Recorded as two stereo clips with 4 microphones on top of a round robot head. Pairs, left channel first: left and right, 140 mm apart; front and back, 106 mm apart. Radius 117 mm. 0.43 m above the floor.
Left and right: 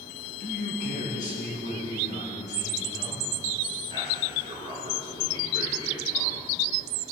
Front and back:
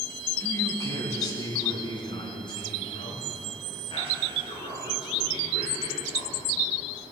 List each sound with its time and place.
0.4 s a man speaking: 60° left, 4.5 m; by 6.5 s 25° left, 9 m